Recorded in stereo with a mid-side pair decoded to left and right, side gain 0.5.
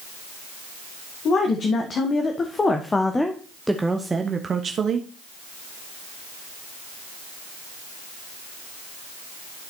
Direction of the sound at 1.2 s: 50° left.